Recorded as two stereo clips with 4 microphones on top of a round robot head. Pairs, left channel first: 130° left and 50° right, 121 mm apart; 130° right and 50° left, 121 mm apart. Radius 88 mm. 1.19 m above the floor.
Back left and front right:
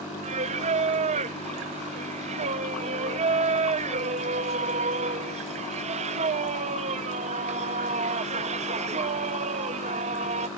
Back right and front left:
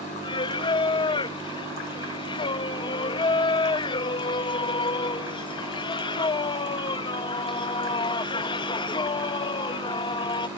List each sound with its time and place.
0.2 s singing: 80° right